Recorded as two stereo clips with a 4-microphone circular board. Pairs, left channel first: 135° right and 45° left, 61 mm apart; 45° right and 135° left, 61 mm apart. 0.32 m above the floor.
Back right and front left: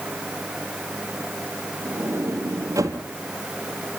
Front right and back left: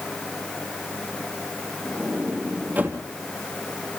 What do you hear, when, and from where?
1.9 s a sliding door: 75° left, 3 m